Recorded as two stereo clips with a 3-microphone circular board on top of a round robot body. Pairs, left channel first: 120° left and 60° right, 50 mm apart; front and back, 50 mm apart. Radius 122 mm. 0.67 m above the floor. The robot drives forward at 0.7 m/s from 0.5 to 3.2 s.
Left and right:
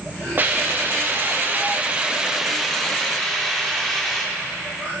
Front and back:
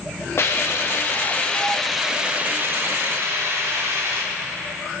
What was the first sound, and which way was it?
A hiss, 20° right.